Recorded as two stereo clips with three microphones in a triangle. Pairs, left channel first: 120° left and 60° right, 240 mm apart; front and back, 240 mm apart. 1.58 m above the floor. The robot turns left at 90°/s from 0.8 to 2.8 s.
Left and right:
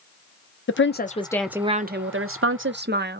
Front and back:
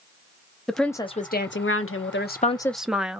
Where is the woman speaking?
90° left, 0.5 m; by 3.2 s 90° right, 0.5 m.